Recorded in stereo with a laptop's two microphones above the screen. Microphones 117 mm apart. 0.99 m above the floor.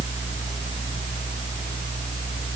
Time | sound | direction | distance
0.0 | a fan | 75° left (ahead or behind) | 5 m